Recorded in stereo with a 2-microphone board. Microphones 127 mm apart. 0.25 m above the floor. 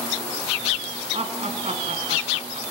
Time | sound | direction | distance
1.1 | laughter | 55° right (ahead or behind) | 3.5 m